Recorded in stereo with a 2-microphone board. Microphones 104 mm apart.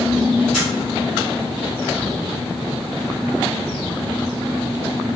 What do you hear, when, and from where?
0.5 s a camera shutter: 5° right (ahead or behind), 1.4 m